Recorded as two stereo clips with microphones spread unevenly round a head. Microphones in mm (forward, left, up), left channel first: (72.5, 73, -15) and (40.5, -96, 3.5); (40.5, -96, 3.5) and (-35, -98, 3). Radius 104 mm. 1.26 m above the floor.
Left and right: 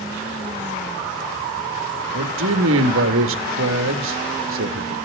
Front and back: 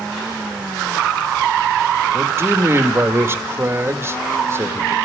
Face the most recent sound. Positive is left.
turn(degrees=-120)